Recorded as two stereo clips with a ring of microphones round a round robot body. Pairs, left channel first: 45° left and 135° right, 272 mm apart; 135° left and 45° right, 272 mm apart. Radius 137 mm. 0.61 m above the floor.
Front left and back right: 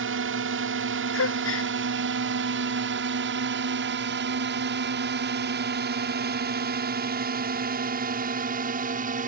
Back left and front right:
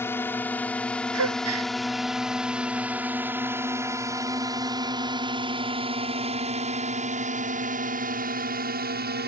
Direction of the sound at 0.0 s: 145° right.